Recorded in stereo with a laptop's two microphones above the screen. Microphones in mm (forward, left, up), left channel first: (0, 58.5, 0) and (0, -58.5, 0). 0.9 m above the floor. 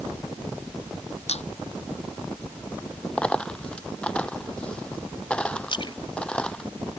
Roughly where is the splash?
Left.